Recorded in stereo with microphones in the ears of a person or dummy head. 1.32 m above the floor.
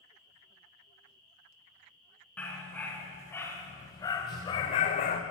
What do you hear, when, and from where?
2.4 s a dog barking: 5° left (ahead or behind), 4 m; by 5.2 s 30° left (ahead or behind), 1.1 m